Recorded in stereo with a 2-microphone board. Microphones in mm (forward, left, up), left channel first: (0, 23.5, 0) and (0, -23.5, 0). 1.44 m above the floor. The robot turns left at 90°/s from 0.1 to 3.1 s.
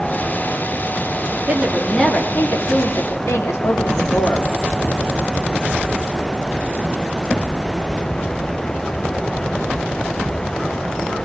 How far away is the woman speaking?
About 3.5 m.